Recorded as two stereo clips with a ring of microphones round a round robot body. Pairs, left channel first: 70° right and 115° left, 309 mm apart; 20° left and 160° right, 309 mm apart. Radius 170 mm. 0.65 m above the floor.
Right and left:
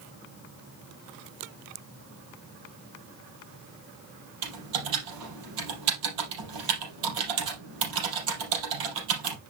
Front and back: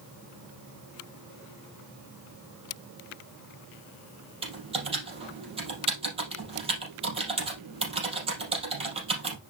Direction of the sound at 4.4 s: 130° left.